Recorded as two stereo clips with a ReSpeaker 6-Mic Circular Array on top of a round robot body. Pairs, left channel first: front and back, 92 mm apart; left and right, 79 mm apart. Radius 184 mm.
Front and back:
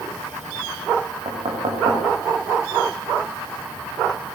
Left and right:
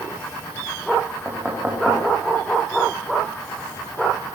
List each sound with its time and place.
1.2 s knocking: 165° right, 6 m